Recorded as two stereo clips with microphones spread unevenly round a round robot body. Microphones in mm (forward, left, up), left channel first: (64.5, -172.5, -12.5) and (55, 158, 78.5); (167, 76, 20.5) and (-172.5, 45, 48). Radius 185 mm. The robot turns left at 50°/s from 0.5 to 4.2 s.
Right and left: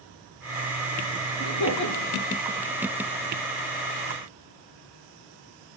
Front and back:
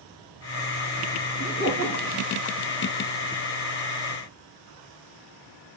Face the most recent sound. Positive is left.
turn(degrees=175)